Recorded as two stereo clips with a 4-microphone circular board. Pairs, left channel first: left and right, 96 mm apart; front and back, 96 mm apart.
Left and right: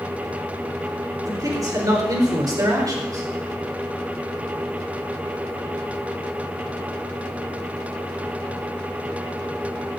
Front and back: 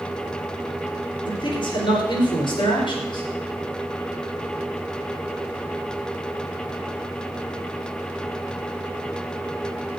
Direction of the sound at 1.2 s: 40° right.